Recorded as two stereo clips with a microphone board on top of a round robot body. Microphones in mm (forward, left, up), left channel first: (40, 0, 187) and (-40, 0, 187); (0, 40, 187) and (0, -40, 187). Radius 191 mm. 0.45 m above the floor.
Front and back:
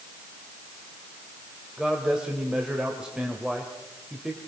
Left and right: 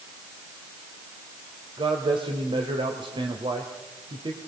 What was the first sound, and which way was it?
A man speaking, 100° right.